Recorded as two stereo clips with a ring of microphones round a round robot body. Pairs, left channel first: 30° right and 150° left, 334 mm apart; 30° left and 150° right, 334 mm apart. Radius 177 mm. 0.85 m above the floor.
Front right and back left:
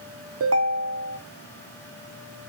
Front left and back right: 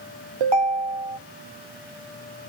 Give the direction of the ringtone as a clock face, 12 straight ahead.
5 o'clock.